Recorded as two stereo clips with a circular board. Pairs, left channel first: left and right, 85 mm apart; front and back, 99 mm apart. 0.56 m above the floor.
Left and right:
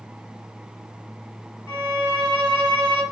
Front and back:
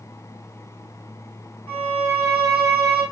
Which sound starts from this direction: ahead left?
A violin, at 1.7 s.